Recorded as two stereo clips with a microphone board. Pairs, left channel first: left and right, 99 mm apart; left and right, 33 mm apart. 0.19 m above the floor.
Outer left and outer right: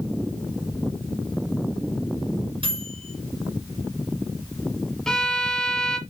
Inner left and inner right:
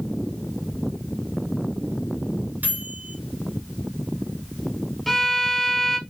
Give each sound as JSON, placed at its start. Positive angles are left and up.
{"t": 2.6, "sound": "a microwave", "side_deg": -60, "distance_m": 2.5}
{"t": 5.1, "sound": "a violin", "side_deg": 5, "distance_m": 0.9}